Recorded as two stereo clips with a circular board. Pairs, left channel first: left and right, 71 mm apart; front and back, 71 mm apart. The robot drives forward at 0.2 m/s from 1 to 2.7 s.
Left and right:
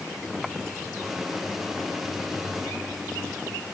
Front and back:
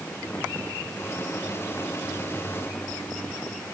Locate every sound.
Only background noise.